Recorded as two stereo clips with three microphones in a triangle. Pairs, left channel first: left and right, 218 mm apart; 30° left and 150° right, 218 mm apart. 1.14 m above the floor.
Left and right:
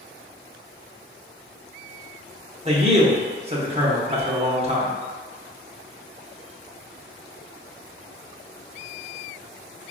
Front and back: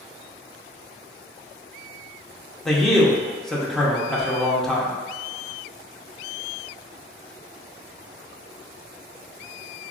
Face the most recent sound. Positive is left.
turn(degrees=-60)